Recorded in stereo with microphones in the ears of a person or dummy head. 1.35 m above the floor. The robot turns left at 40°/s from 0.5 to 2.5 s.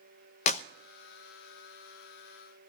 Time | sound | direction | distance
0.5 | a clap | 45° left (ahead or behind) | 0.7 m